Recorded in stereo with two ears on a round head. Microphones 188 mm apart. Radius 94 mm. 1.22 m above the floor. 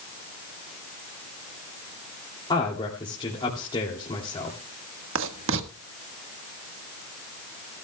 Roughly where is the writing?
Right.